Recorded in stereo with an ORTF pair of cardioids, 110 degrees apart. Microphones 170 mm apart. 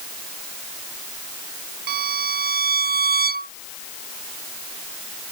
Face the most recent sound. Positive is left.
turn(degrees=-65)